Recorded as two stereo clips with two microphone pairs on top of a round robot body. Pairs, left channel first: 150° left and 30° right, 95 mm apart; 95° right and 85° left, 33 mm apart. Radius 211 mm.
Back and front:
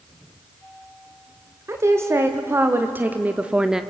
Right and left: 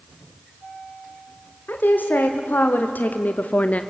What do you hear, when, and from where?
1.7 s a woman speaking: 85° right, 2 m; by 3.8 s 110° right, 1.1 m